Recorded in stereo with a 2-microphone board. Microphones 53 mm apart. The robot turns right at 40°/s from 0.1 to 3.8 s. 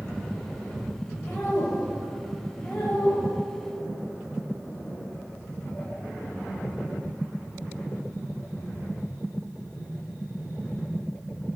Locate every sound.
1.2 s a woman speaking: 35° left (ahead or behind), 1.3 m; by 3.3 s 15° left (ahead or behind), 1.3 m